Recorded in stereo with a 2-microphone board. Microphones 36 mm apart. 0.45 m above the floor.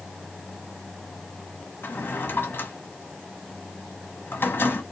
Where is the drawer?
75° left (ahead or behind), 1.2 m.